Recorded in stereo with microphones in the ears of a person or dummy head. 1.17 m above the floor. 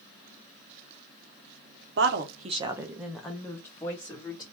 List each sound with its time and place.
2.0 s a woman speaking: 60° right (ahead or behind), 0.7 m; by 4.4 s 25° left (ahead or behind), 1.9 m